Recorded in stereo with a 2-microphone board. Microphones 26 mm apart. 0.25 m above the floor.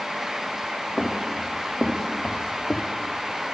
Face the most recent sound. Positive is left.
turn(degrees=60)  # may be behind; listen again after turning